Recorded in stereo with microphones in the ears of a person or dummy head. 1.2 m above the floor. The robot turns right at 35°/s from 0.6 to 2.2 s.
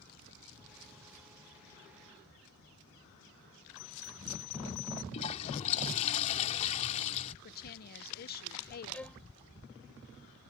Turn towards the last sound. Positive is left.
turn(degrees=5)  # may be behind; listen again after turning